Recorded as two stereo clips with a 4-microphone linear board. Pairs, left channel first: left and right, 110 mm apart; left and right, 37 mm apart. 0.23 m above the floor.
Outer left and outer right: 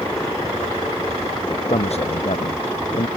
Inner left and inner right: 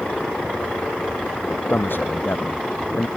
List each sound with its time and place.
1.7 s a man speaking: 80° left